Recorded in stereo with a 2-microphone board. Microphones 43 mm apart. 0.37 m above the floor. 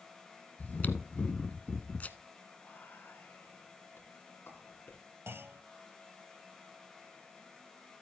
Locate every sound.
0.6 s chewing: 35° left (ahead or behind), 0.9 m
2.6 s whispering: 55° left (ahead or behind), 3.5 m
5.3 s a clunk: 70° right (ahead or behind), 0.7 m